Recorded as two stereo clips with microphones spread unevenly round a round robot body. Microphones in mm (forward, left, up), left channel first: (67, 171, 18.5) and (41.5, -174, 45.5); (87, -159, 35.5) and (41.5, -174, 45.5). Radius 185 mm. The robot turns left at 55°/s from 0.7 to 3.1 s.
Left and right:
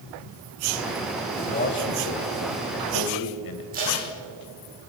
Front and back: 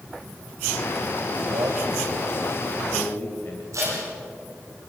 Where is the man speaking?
165° left, 3 m; by 3.6 s 70° left, 3 m.